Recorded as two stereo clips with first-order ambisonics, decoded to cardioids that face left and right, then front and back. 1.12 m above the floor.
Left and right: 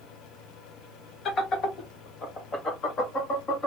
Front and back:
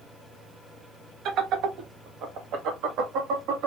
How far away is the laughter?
About 1.1 m.